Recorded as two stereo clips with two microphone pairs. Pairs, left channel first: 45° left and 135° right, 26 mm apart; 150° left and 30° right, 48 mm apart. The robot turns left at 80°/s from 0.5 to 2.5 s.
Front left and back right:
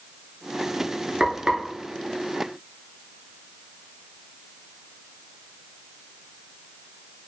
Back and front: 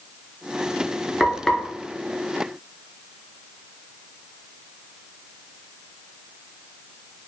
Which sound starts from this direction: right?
Frying, at 1.2 s.